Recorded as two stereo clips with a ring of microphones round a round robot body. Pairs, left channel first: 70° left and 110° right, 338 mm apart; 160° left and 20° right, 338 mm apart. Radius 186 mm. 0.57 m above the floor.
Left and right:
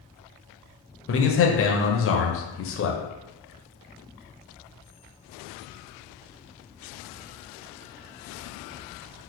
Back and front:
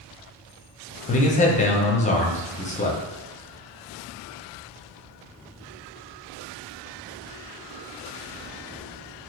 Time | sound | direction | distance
1.1 | a man speaking | 100° left | 0.7 m